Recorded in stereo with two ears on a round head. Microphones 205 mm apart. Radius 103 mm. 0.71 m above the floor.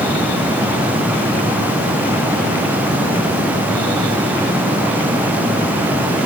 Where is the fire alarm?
I don't hear a fire alarm.